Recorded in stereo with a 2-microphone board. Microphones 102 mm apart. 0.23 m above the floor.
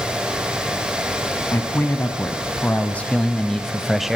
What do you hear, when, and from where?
1.5 s a man speaking: 25° left (ahead or behind), 1.8 m; by 4.2 s 5° right (ahead or behind), 1.0 m